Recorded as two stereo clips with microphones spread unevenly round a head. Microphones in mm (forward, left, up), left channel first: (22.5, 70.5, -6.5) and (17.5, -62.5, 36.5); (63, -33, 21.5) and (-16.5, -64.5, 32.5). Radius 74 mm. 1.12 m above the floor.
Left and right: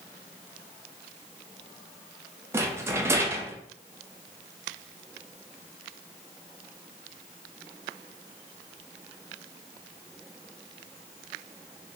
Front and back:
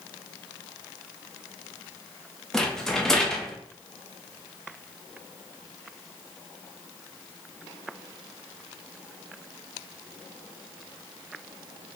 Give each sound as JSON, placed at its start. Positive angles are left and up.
{"t": 2.5, "sound": "a rattle", "azimuth_deg": -70, "distance_m": 0.6}